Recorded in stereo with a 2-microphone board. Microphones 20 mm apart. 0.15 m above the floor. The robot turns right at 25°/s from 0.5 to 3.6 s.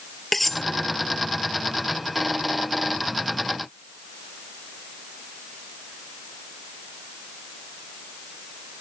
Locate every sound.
0.3 s cutlery clinking: 15° left (ahead or behind); by 0.6 s 10° left (ahead or behind)